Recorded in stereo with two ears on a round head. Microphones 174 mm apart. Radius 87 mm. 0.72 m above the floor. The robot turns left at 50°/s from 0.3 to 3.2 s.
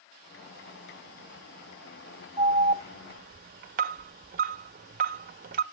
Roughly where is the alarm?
Right.